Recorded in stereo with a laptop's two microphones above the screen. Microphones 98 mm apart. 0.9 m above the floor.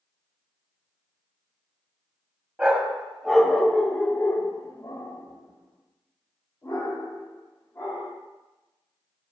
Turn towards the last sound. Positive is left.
turn(degrees=35)  # may be behind; listen again after turning